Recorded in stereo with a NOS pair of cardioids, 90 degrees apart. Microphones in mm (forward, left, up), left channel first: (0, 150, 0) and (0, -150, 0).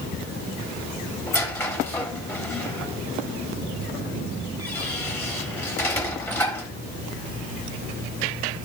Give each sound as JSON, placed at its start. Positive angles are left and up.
{"t": 1.3, "sound": "a squeak", "azimuth_deg": 10, "distance_m": 3.0}